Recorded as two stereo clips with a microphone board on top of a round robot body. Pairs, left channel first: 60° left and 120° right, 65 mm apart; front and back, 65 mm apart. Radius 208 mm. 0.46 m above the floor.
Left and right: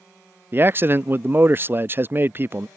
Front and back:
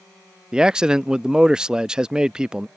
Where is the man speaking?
110° right.